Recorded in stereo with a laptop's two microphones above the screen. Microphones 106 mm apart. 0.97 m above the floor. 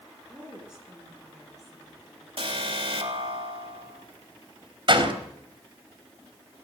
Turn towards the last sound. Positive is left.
turn(degrees=-50)  # may be behind; listen again after turning